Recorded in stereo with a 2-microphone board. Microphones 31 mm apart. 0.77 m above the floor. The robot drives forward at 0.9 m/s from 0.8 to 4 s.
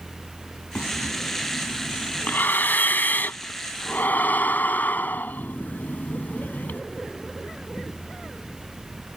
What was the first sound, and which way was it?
Breathing, 70° left (ahead or behind).